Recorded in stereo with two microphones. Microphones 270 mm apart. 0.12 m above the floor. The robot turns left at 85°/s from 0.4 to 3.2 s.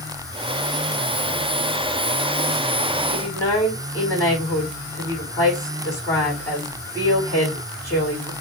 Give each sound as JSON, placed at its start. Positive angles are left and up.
{"t": 3.1, "sound": "a woman speaking", "side_deg": 5, "distance_m": 6.5}